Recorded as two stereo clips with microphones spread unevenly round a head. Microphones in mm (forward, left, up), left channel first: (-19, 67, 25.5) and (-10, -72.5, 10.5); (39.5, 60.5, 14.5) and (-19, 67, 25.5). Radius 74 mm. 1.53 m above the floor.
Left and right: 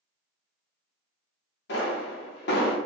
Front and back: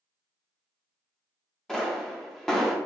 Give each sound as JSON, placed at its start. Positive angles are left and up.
{"t": 1.7, "sound": "a pop", "azimuth_deg": 80, "distance_m": 1.1}